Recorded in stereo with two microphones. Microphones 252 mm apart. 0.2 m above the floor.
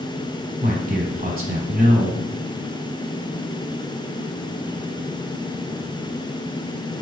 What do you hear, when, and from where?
0.6 s a man speaking: 35° right (ahead or behind), 1.2 m